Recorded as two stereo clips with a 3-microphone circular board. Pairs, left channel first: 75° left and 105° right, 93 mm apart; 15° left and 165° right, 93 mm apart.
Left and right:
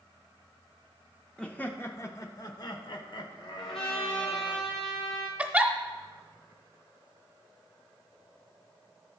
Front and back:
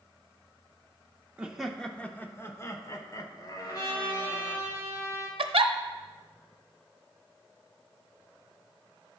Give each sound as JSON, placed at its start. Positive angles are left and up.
{"t": 1.4, "sound": "laughter", "azimuth_deg": 135, "distance_m": 0.7}
{"t": 3.6, "sound": "a trumpet", "azimuth_deg": 70, "distance_m": 3.0}
{"t": 5.4, "sound": "a giggle", "azimuth_deg": 180, "distance_m": 0.7}